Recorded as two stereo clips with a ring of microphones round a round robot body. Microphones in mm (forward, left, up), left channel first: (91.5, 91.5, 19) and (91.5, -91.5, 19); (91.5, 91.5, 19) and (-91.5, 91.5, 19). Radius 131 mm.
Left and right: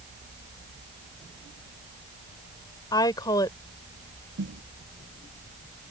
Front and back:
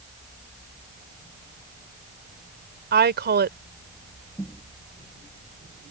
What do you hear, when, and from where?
2.9 s a woman speaking: 165° left
4.4 s a snare drum: 80° right